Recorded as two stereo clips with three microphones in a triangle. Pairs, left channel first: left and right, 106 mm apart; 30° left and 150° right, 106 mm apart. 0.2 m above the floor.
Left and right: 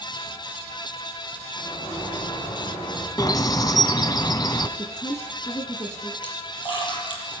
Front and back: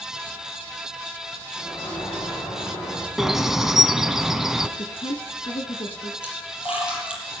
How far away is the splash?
About 6.5 m.